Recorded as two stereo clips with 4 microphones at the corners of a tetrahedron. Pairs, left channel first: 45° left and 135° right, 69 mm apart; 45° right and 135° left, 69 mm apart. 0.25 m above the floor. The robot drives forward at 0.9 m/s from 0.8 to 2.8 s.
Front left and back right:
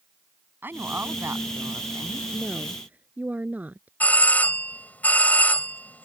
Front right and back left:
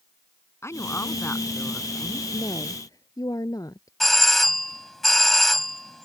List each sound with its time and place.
0.6 s a woman speaking: 85° right; by 2.2 s 120° right
2.3 s a woman speaking: 65° right; by 3.9 s 70° right
4.0 s a doorbell: 35° left